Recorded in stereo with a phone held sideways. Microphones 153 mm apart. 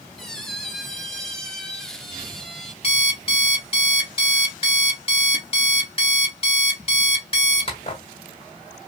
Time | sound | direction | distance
0.2 | a squeak | 5° left (ahead or behind) | 0.7 m
2.8 | an alarm clock | 40° left (ahead or behind) | 1.8 m